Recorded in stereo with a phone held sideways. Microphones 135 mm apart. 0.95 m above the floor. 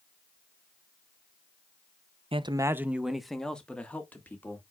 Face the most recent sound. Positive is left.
turn(degrees=15)  # may be behind; listen again after turning